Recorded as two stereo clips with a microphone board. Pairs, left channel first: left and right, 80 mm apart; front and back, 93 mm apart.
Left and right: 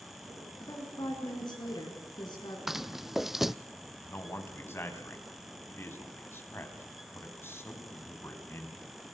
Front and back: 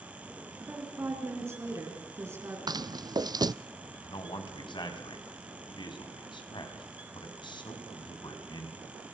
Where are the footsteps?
175° right, 0.6 m.